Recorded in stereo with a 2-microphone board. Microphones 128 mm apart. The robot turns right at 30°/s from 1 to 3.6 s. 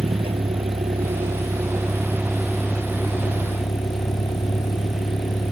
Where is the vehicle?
45° right; by 5.5 s 35° left.